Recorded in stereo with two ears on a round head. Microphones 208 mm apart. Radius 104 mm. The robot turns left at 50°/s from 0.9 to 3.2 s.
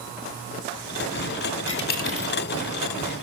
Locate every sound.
1.7 s a dropped coin: 50° left (ahead or behind), 0.8 m; by 2.3 s 20° left (ahead or behind), 0.8 m